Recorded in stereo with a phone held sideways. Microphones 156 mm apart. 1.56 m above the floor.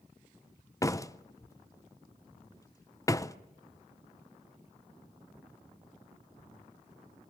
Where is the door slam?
20° left (ahead or behind), 0.6 m.